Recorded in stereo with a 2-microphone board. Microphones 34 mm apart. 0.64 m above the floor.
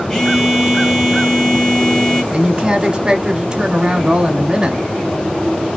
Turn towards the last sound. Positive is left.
turn(degrees=-25)  # may be behind; listen again after turning